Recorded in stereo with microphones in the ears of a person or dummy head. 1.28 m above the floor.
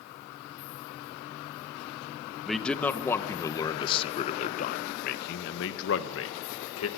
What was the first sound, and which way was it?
A man speaking, 5° left (ahead or behind).